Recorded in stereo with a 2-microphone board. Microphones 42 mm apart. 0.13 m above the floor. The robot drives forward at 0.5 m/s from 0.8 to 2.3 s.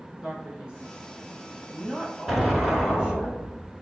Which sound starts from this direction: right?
A man speaking, at 0.2 s.